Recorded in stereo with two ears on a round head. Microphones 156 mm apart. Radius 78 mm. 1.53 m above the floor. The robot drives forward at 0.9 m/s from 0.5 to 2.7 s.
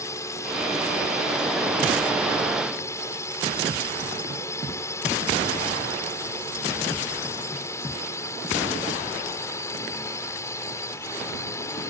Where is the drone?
20° left (ahead or behind); by 11.9 s 15° left (ahead or behind).